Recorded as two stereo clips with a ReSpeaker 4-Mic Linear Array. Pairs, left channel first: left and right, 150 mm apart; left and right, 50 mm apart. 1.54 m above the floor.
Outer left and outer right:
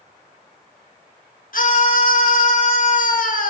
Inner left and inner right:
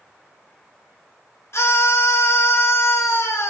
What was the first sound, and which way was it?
A scream, 65° left (ahead or behind).